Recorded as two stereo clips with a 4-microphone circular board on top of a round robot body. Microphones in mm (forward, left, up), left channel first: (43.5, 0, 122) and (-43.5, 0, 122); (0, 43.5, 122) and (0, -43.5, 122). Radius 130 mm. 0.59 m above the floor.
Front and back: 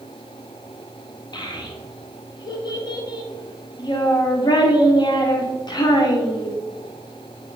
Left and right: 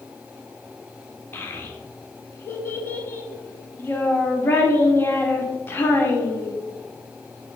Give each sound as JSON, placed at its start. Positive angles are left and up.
{"t": 1.3, "sound": "a child speaking", "azimuth_deg": 30, "distance_m": 1.7}